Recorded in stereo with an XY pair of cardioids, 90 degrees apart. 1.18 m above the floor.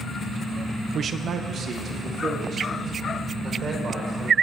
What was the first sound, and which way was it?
A man speaking, 55° right.